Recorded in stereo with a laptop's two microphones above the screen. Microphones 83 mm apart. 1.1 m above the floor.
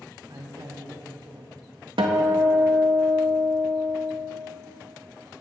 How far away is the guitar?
About 0.8 m.